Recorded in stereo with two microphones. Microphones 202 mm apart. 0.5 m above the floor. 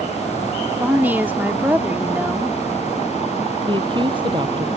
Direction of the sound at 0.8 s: 10° right (ahead or behind).